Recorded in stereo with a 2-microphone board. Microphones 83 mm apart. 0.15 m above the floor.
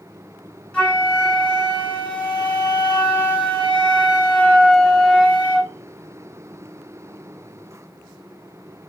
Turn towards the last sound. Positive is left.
turn(degrees=15)  # may be behind; listen again after turning